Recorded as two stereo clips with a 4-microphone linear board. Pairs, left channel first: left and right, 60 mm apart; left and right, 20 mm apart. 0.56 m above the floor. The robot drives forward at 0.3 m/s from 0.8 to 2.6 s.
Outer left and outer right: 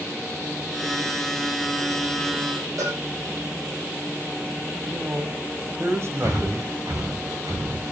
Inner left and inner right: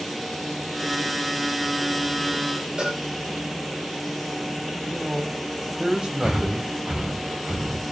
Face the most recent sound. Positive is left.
turn(degrees=-65)  # may be behind; listen again after turning